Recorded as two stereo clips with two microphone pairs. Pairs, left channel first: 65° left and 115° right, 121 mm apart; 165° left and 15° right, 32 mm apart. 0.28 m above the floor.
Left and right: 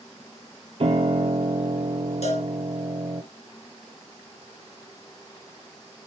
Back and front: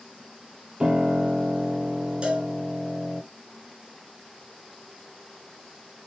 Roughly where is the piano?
Right.